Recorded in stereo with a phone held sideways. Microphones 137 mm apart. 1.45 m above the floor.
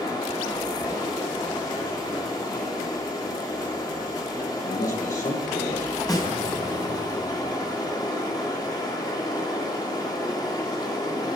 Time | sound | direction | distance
0.0 | running water | 30° left (ahead or behind) | 2 m
4.6 | a man speaking | 75° left (ahead or behind) | 1.3 m
6.1 | a snare drum | 25° left (ahead or behind) | 2 m